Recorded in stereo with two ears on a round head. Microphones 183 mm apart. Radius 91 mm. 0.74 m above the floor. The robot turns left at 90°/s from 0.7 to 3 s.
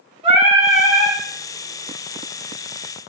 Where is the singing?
145° right, 1.8 m; by 1.2 s 170° left, 1.8 m.